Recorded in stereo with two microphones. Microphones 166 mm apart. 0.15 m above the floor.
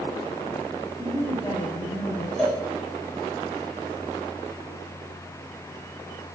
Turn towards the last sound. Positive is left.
turn(degrees=5)  # may be behind; listen again after turning